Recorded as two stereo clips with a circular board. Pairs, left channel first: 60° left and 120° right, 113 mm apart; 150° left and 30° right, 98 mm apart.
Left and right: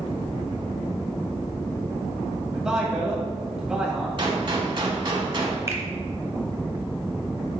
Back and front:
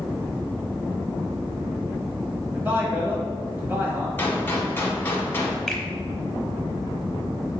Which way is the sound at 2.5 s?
45° right.